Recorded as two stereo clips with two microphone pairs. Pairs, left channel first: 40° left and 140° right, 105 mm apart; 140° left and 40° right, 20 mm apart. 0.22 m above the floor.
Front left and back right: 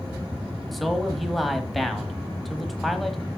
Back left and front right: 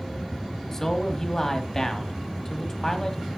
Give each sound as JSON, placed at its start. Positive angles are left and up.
{"t": 0.7, "sound": "a man speaking", "azimuth_deg": 130, "distance_m": 1.1}